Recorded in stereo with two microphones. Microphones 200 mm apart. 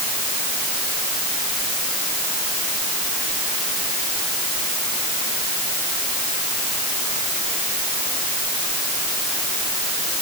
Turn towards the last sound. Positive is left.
No sound to turn to.